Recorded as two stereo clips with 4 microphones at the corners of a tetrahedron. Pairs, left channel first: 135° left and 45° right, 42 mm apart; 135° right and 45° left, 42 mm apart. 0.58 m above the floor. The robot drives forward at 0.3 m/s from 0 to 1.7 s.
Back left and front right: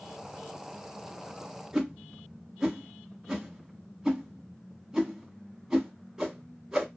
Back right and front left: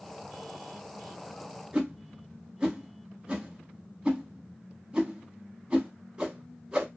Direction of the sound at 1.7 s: 20° left.